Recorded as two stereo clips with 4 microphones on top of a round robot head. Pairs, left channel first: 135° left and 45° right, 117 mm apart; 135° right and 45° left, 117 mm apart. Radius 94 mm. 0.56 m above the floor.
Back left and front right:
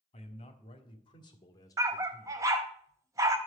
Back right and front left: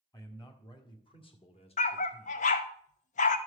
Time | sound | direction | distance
0.1 | a man speaking | 165° left | 2 m
1.8 | a dog barking | 110° right | 0.6 m